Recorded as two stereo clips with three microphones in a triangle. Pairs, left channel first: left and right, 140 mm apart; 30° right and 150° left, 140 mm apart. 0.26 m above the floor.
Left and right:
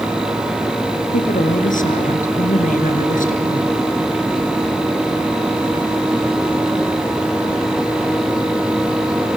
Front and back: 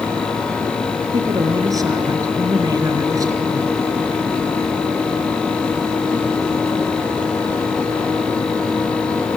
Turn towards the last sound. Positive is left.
turn(degrees=85)